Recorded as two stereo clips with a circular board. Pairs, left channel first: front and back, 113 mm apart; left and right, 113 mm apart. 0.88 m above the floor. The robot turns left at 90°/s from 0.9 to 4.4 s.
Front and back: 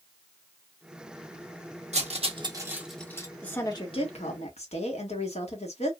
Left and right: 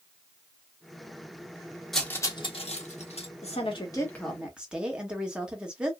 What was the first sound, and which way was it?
Cutlery clinking, straight behind.